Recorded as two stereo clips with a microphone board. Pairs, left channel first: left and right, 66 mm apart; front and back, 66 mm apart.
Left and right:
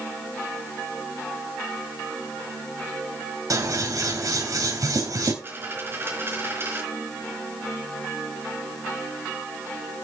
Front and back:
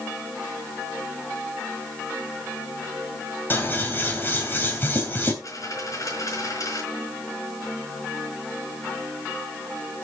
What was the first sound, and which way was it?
Scissors, 60° right.